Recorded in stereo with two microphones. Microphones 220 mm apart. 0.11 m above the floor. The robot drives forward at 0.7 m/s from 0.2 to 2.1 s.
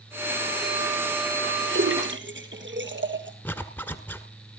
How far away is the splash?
About 1.7 m.